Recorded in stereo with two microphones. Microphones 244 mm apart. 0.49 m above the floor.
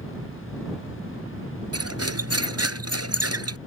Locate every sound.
1.7 s cutlery clinking: 80° right